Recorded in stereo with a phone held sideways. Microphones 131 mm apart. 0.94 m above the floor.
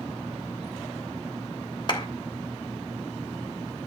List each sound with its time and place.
1.9 s a clap: 40° left (ahead or behind), 3 m